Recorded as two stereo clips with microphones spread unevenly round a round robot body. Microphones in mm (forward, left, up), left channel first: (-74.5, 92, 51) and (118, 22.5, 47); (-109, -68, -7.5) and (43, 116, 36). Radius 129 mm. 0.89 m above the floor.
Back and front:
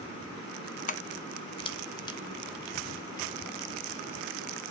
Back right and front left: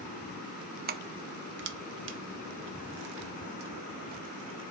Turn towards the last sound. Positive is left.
turn(degrees=85)